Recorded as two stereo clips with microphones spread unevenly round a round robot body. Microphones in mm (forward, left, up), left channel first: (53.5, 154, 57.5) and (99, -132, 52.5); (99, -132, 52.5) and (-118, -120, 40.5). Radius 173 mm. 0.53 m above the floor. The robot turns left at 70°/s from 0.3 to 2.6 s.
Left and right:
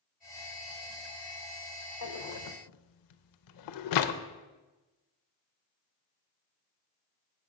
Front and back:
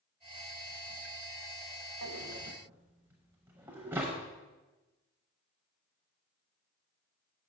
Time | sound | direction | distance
2.0 | a drawer | 135° left | 0.5 m